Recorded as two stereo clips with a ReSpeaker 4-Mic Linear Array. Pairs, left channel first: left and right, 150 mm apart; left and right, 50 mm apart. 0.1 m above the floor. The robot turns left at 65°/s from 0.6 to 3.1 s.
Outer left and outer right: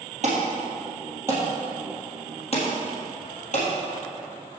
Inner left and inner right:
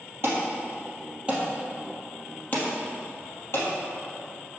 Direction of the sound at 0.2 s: 55° right (ahead or behind).